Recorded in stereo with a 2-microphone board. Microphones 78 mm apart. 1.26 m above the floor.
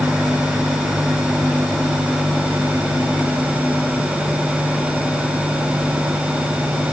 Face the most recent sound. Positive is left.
No sound to turn to.